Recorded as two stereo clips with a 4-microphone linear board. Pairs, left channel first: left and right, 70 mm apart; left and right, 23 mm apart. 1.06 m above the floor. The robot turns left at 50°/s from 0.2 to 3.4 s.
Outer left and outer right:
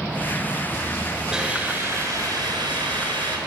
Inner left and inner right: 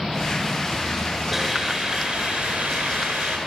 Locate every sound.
1.3 s a hiss: 10° right, 7 m; by 3.4 s 110° right, 7 m